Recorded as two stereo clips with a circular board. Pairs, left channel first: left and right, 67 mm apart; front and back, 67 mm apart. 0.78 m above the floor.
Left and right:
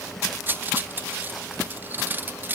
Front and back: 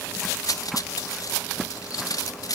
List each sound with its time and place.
0.5 s cutlery clinking: 30° right, 0.5 m